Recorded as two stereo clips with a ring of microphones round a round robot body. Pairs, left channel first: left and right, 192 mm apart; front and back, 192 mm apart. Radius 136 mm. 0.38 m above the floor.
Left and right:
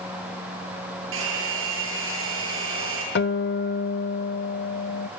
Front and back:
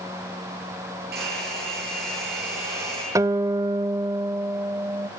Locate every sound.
1.1 s a hair dryer: 125° right, 9 m
3.1 s a guitar: 110° left, 0.7 m